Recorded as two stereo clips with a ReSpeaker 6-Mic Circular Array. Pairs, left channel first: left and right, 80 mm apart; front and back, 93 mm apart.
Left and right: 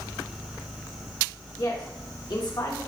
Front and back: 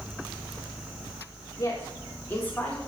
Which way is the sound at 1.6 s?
55° left.